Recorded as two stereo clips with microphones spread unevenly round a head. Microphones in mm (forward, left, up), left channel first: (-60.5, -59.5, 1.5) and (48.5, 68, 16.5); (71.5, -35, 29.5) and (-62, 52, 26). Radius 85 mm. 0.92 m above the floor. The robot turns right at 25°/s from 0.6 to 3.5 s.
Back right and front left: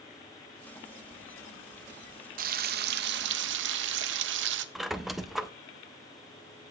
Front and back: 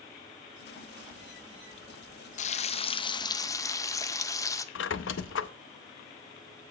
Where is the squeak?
40° right, 0.6 m.